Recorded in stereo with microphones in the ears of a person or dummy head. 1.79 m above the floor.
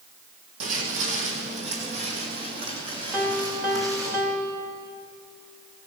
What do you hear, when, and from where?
0.6 s footsteps: 55° right (ahead or behind), 3.5 m; by 4.1 s 20° right (ahead or behind), 5 m
3.1 s a piano: 10° right (ahead or behind), 2.5 m